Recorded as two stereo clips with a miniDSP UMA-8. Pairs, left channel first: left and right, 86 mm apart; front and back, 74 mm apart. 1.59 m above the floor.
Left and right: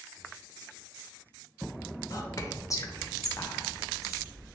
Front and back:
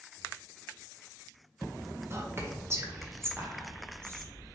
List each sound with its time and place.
2.1 s whispering: 130° left, 0.6 m